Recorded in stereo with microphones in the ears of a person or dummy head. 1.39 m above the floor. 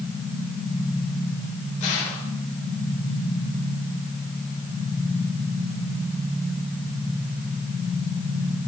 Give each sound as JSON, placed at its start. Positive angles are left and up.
{"t": 1.8, "sound": "a gunshot", "side_deg": 40, "distance_m": 8.0}